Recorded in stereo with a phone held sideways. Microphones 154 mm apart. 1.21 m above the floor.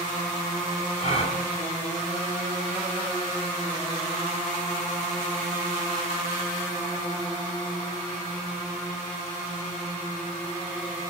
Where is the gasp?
45° left (ahead or behind), 2.5 m.